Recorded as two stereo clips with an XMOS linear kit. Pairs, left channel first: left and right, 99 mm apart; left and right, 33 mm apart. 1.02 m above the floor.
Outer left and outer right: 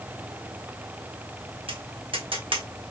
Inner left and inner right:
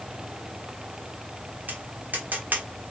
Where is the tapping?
75° right (ahead or behind), 1.3 m.